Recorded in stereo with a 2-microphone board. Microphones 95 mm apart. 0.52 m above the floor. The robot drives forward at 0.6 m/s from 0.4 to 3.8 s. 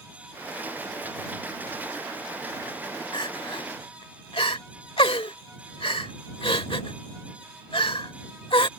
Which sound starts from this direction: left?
Crying, at 3.1 s.